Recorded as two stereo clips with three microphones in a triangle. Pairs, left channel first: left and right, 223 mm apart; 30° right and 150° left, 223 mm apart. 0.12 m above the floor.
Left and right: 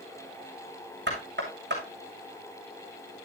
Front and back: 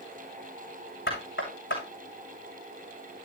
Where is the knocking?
55° right, 7 m.